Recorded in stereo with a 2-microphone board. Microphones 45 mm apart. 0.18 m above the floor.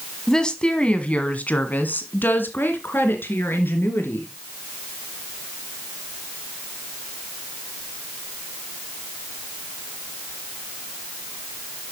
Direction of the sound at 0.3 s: 15° left (ahead or behind).